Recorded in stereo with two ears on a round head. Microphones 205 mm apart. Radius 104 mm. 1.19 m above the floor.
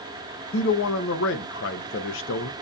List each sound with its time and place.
0.5 s a man speaking: 55° left (ahead or behind), 0.6 m